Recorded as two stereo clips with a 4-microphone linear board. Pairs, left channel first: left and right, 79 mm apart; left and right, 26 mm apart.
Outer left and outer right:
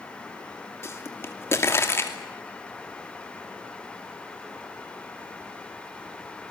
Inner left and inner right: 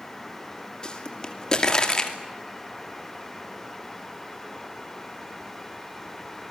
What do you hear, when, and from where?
0.8 s a pop: 30° left (ahead or behind), 2.5 m